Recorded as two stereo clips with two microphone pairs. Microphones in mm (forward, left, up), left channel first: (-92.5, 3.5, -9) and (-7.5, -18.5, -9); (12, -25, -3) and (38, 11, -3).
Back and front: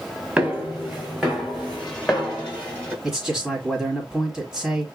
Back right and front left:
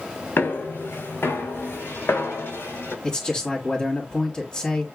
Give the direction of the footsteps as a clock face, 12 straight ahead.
3 o'clock.